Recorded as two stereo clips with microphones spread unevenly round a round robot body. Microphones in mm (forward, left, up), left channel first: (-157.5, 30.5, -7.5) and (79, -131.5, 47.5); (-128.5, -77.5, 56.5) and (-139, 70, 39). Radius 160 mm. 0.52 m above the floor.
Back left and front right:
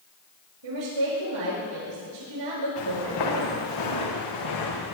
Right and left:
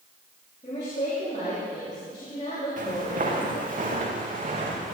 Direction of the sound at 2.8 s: 120° left.